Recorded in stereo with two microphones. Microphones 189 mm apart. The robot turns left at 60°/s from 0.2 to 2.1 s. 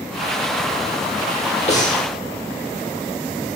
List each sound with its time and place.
1.7 s breathing: 35° left (ahead or behind), 0.9 m; by 2.0 s 50° left (ahead or behind), 0.9 m